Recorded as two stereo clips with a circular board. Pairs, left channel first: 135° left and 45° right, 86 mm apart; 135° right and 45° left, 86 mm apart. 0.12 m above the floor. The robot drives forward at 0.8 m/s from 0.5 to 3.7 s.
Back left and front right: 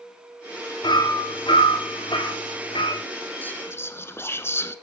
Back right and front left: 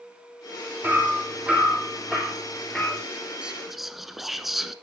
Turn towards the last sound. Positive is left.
turn(degrees=130)